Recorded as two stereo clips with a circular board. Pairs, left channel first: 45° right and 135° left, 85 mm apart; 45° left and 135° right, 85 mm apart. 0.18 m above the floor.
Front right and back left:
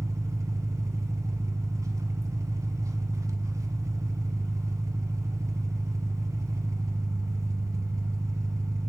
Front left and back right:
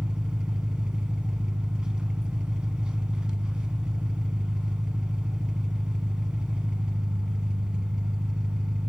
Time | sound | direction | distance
0.0 | an engine running | 150° left | 1.1 m